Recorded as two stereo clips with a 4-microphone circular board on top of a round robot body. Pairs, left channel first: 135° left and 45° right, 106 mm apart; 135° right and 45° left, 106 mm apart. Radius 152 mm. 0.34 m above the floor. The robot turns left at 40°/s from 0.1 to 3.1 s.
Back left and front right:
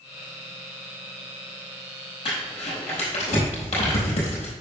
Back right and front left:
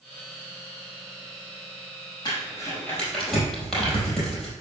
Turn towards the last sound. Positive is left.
turn(degrees=140)